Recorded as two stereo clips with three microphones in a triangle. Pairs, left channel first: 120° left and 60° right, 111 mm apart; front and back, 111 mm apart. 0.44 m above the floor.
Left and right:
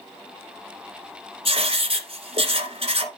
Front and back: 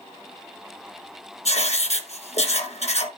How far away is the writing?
About 1.5 m.